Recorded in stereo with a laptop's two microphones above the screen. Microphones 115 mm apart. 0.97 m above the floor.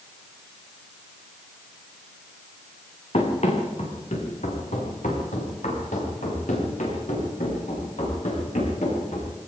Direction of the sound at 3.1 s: 65° left (ahead or behind).